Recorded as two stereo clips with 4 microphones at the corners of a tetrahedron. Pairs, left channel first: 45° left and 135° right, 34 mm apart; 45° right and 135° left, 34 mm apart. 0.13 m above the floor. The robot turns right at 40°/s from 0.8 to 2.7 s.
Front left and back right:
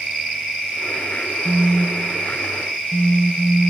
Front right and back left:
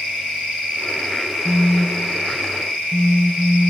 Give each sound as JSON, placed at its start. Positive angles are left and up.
{"t": 1.4, "sound": "a phone buzzing", "azimuth_deg": -75}